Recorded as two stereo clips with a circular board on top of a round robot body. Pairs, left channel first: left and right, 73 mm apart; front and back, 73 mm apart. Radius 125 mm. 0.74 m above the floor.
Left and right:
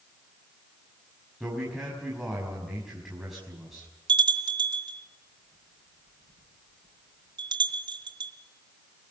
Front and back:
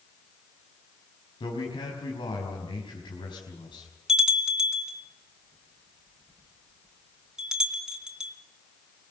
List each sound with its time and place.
1.4 s a man speaking: straight ahead, 5 m
4.1 s a bell: 100° right, 3.5 m